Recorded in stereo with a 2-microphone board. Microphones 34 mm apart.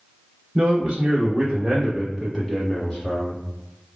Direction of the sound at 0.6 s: 30° right (ahead or behind).